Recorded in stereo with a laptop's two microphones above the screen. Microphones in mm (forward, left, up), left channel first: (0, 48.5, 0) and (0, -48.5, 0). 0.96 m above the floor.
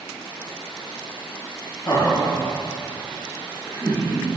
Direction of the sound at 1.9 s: 35° left (ahead or behind).